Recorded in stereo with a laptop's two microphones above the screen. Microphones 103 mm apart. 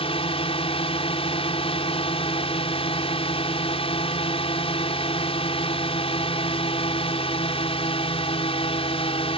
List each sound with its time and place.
0.0 s a drone: 70° left (ahead or behind)